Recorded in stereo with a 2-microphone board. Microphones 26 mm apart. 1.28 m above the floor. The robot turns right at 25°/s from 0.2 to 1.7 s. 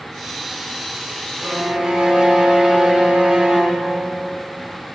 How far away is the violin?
About 1.7 m.